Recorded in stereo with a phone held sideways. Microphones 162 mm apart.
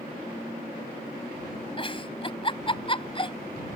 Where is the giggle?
35° left (ahead or behind).